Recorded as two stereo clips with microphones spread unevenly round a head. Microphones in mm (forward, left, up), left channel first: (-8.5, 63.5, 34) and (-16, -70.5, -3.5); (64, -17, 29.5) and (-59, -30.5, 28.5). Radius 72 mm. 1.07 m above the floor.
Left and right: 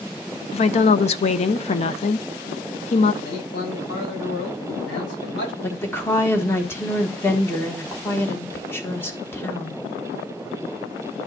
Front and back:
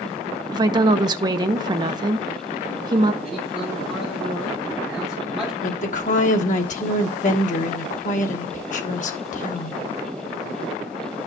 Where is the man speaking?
90° left, 5.5 m.